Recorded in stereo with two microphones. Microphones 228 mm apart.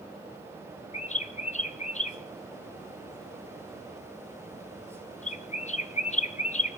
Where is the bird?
30° left (ahead or behind), 0.6 m.